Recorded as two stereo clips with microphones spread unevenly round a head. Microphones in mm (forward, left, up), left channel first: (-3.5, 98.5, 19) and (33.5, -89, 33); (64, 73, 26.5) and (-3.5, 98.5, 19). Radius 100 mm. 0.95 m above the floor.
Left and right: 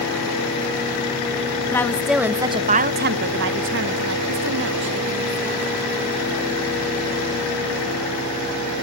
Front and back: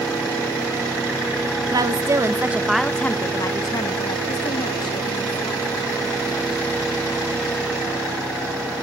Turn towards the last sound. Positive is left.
turn(degrees=-50)